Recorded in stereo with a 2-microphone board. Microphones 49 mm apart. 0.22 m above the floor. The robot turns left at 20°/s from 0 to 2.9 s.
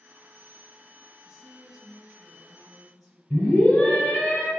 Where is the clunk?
No clunk in this recording.